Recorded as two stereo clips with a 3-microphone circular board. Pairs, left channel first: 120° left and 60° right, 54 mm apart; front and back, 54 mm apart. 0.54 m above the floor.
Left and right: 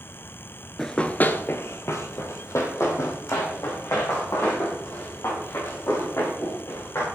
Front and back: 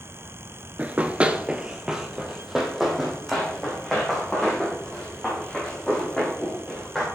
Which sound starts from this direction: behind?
Running footsteps, at 0.8 s.